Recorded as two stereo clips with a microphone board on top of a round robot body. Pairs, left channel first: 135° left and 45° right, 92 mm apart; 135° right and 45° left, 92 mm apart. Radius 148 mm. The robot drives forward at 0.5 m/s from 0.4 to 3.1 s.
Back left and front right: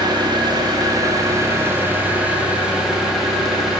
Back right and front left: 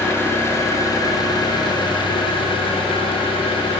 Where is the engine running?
75° right, 1.4 m; by 3.8 s 130° right, 1.8 m.